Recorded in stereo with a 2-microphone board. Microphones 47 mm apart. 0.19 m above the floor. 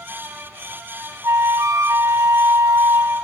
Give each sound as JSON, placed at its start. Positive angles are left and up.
{"t": 1.2, "sound": "a flute", "side_deg": -85, "distance_m": 0.7}